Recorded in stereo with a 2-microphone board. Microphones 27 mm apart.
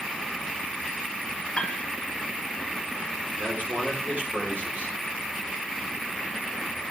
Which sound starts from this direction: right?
A man speaking, at 3.4 s.